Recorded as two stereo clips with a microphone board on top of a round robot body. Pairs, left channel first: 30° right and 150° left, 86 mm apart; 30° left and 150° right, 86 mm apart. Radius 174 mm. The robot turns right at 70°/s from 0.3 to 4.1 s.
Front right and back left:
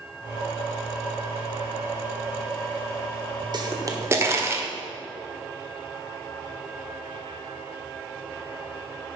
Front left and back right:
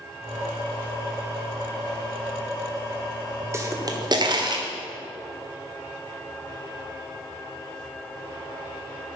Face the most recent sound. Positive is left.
turn(degrees=-160)